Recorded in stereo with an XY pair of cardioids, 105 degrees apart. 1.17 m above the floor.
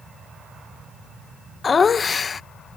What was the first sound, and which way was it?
Laughter, 40° left.